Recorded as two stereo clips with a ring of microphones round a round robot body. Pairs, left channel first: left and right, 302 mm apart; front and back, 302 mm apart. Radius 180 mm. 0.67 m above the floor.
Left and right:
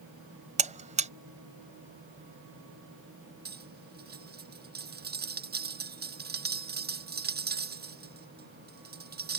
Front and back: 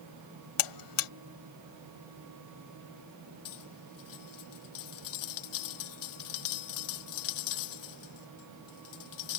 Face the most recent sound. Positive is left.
turn(degrees=-30)